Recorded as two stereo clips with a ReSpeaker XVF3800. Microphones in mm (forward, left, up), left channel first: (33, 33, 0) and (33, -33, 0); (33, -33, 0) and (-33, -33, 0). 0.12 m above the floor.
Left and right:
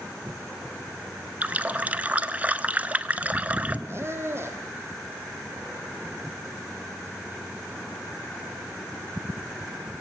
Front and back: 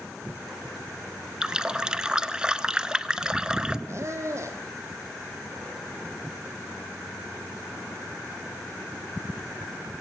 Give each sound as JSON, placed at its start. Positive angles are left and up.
{"t": 1.4, "sound": "a running tap", "azimuth_deg": -120, "distance_m": 0.9}
{"t": 3.9, "sound": "a squeak", "azimuth_deg": -135, "distance_m": 3.0}